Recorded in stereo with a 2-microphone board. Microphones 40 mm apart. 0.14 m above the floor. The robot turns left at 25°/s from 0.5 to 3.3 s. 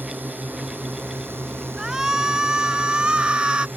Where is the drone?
55° right (ahead or behind); by 3.8 s 60° right (ahead or behind).